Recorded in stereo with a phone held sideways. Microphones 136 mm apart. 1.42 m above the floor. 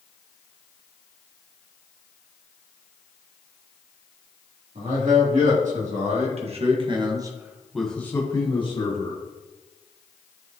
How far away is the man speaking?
About 3 m.